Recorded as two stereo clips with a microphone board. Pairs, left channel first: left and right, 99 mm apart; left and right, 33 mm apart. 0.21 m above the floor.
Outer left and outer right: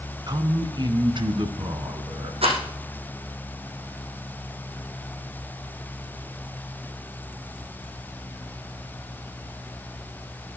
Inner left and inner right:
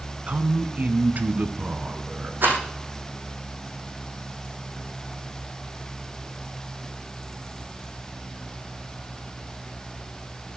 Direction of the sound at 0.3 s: 45° right (ahead or behind).